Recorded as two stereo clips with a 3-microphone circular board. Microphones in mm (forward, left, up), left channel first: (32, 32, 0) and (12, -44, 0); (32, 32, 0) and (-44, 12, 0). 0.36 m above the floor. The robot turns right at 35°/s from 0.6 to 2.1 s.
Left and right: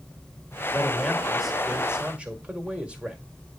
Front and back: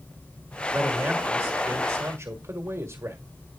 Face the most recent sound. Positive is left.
turn(degrees=-170)